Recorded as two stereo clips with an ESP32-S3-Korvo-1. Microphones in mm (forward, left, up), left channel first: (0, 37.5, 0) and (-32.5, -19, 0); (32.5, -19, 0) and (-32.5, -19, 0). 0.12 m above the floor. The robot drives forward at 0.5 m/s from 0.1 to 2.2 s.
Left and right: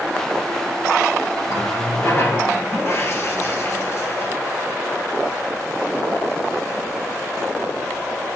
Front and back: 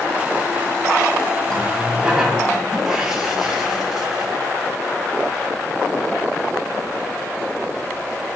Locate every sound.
1.5 s a running tap: 85° left, 1.4 m; by 4.3 s 100° left, 1.4 m